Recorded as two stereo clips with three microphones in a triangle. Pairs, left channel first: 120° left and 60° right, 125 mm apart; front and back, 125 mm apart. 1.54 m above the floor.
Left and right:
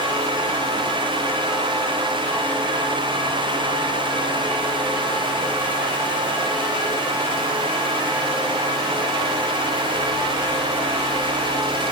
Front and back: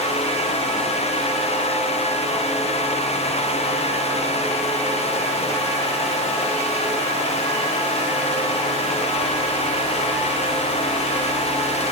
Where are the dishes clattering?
No dishes clattering in this recording.